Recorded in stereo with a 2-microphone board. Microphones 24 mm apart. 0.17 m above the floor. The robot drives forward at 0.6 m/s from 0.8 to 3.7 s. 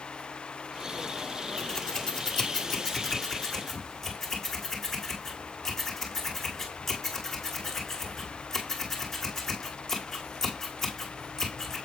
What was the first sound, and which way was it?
Scissors, 30° left (ahead or behind).